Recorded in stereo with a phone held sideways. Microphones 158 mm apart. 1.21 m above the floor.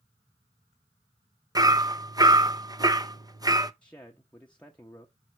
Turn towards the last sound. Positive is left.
turn(degrees=10)  # may be behind; listen again after turning